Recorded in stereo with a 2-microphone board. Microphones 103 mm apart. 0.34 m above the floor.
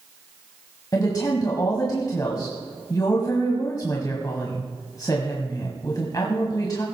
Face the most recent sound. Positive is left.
turn(degrees=35)  # may be behind; listen again after turning